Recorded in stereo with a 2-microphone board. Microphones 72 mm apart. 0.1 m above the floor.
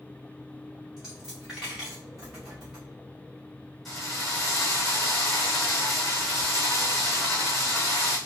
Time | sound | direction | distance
1.0 | a dropped coin | 5° right (ahead or behind) | 2 m
3.9 | a drill | centre (ahead or behind) | 2 m